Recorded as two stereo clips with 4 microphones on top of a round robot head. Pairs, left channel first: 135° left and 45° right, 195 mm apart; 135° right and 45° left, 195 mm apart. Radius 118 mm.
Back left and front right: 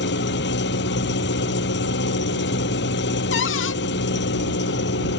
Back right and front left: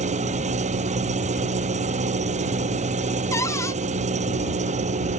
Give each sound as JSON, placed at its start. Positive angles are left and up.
{"t": 0.0, "sound": "an engine running", "azimuth_deg": 100}
{"t": 3.3, "sound": "a cupboard door", "azimuth_deg": 150}